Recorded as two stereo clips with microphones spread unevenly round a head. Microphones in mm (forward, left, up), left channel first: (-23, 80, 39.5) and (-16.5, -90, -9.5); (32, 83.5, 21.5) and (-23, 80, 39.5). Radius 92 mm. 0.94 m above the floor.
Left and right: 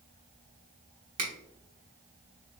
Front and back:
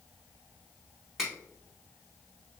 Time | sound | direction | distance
1.2 | a finger snap | 80° right | 1.2 m